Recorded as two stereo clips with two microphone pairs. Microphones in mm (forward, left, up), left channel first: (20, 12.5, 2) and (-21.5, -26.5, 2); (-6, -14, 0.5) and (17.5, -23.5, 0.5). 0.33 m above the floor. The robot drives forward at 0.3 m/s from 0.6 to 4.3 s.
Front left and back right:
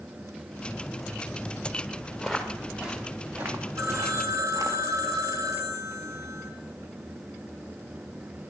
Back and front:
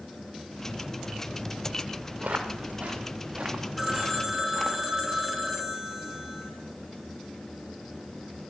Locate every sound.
2.2 s footsteps: 45° right, 4 m; by 4.8 s 135° right, 3 m
3.8 s a phone ringing: 115° right, 2.5 m